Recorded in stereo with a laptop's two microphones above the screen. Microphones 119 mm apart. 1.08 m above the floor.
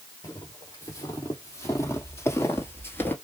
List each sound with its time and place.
0.2 s footsteps: 30° left (ahead or behind), 2.5 m; by 3.1 s 20° left (ahead or behind), 1.2 m